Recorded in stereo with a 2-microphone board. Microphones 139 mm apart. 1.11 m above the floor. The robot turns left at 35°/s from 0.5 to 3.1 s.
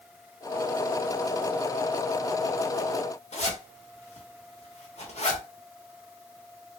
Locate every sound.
3.3 s a zipper: 50° left (ahead or behind), 0.9 m